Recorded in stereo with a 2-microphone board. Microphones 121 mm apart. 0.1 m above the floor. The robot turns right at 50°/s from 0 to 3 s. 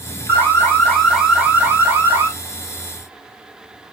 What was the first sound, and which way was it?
An alarm, 15° left (ahead or behind).